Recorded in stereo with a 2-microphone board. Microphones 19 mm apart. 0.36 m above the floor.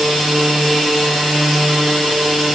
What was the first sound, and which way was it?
Only background noise.